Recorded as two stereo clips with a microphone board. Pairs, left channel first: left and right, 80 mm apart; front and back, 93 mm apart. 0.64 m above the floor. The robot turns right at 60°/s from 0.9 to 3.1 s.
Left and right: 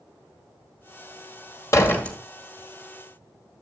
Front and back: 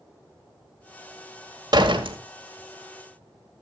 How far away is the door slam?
About 1.7 m.